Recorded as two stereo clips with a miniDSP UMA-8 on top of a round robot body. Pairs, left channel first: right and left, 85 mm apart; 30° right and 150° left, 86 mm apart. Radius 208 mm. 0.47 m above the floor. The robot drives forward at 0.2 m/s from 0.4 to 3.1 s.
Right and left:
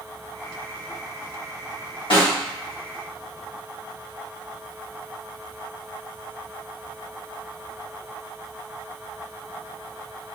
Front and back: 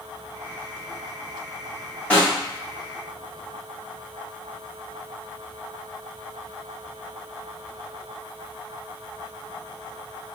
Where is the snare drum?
105° right, 1.9 m.